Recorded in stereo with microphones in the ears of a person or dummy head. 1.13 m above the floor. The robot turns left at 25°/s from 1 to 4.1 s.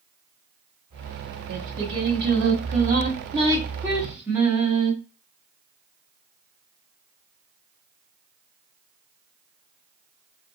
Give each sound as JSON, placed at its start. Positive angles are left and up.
{"t": 1.5, "sound": "singing", "azimuth_deg": -110, "distance_m": 1.4}